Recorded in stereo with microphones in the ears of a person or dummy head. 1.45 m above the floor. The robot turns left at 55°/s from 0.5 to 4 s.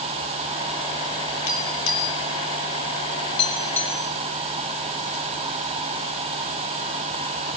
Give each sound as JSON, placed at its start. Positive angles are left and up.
{"t": 1.5, "sound": "tapping", "side_deg": 45, "distance_m": 5.0}